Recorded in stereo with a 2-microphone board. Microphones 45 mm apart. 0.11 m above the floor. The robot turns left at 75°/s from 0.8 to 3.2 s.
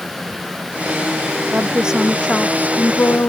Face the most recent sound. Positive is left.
turn(degrees=100)